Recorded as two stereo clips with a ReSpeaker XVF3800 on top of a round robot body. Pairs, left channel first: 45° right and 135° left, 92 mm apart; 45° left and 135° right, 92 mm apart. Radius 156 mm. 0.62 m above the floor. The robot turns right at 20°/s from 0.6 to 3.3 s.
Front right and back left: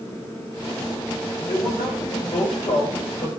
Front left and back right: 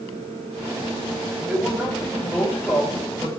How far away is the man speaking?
About 4.5 m.